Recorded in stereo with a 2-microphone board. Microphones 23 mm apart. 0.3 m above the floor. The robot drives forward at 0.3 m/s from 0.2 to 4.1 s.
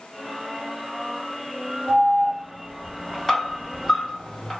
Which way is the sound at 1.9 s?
10° left (ahead or behind).